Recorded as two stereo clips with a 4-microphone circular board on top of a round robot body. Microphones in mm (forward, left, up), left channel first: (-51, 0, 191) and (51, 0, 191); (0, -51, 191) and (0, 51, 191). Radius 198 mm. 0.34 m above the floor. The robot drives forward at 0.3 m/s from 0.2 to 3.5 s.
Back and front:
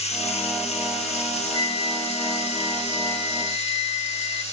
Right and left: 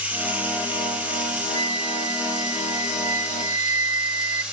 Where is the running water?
165° left, 3.5 m; by 4.5 s 170° left, 4.5 m.